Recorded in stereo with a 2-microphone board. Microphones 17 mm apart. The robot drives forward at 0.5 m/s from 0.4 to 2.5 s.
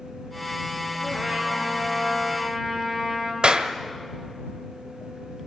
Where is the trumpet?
20° right (ahead or behind), 5 m.